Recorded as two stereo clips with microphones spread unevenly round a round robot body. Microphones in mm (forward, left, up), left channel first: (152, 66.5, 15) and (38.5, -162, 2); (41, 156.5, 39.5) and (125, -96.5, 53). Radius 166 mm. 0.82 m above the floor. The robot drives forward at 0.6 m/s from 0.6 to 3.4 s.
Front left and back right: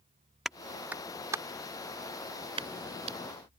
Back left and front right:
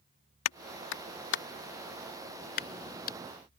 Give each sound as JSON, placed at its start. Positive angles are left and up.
{"t": 0.5, "sound": "a clap", "azimuth_deg": 155}